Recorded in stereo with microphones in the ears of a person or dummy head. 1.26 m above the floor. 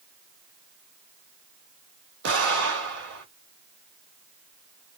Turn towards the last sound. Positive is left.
turn(degrees=-60)  # may be behind; listen again after turning